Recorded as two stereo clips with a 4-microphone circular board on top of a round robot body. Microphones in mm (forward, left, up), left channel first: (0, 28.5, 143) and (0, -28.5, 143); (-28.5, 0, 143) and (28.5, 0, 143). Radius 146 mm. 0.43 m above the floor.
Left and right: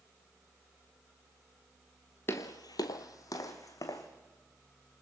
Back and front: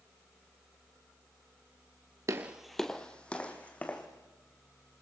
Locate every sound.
2.3 s footsteps: 40° left, 0.5 m; by 4.1 s 115° left, 2.5 m